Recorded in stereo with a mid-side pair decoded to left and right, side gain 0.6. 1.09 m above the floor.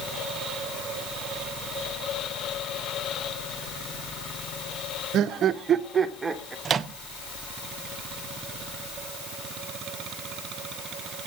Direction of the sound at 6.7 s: 40° right.